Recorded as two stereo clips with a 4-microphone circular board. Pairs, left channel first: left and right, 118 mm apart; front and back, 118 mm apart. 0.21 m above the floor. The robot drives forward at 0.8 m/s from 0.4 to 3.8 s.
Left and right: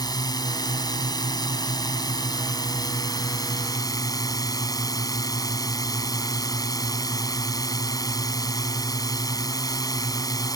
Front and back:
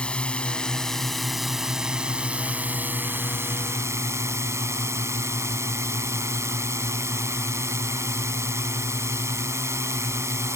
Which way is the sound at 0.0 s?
75° left.